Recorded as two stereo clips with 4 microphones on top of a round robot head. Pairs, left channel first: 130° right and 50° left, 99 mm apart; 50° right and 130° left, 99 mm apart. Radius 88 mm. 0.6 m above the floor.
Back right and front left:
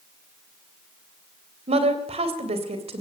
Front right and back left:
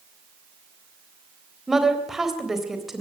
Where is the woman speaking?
45° left, 3.5 m.